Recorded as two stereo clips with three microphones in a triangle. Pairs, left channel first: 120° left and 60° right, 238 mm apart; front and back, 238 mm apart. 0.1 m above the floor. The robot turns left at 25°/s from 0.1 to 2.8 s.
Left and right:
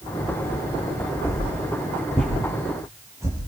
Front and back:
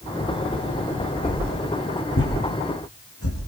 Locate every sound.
1.2 s a whoosh: 55° left, 8.5 m; by 3.4 s 20° left, 8.5 m